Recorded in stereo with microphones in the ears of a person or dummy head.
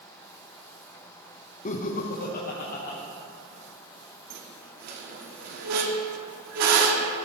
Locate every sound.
1.6 s laughter: 35° left (ahead or behind), 0.5 m; by 3.0 s 55° left (ahead or behind), 1.3 m
4.3 s a squeak: 65° right (ahead or behind), 1.1 m